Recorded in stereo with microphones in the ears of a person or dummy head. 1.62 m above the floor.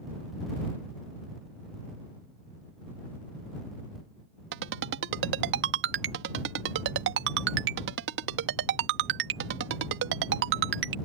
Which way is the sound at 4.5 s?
65° right (ahead or behind).